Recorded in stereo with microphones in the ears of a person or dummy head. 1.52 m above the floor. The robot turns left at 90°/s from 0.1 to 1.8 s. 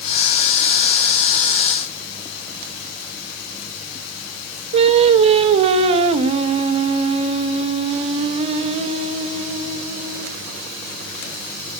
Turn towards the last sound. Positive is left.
turn(degrees=-40)  # may be behind; listen again after turning